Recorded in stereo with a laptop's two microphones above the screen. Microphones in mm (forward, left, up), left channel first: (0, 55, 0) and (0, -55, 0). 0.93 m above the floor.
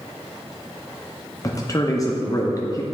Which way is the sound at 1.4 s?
30° left (ahead or behind).